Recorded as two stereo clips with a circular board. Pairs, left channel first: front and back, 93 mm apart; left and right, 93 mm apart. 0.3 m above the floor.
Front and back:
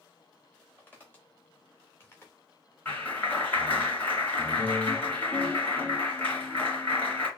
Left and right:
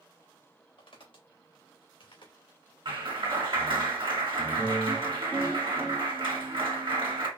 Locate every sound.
0.8 s footsteps: 70° left, 3 m; by 2.3 s 65° left, 2 m
2.9 s a clap: 70° right, 2 m